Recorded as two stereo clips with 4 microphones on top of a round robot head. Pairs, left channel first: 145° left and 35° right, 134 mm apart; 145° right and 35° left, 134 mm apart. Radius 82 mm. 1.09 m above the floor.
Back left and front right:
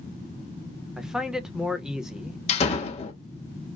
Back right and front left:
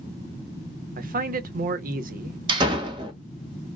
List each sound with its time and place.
1.0 s a man speaking: 50° left, 0.9 m
2.5 s a door slam: 95° left, 1.1 m